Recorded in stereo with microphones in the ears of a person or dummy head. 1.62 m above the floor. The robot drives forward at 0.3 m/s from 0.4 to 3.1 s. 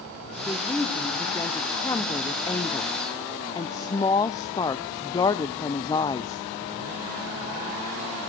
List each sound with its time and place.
0.5 s a woman speaking: 10° left (ahead or behind), 1.4 m; by 6.5 s 15° left (ahead or behind), 0.7 m